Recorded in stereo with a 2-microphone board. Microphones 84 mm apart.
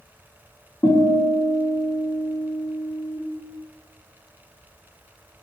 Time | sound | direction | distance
0.8 | a guitar | 35° left (ahead or behind) | 2.5 m